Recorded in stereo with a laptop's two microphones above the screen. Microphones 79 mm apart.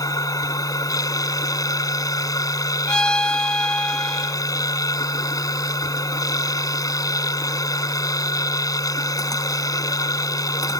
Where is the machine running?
50° left (ahead or behind).